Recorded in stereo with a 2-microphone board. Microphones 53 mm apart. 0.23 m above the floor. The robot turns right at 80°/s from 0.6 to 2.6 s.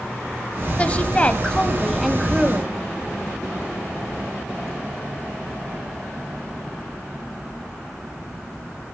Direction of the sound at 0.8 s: 25° left (ahead or behind).